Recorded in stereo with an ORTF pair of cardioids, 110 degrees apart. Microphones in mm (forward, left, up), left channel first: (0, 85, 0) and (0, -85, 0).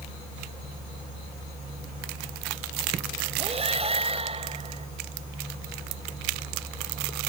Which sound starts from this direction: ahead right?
Breathing, at 3.4 s.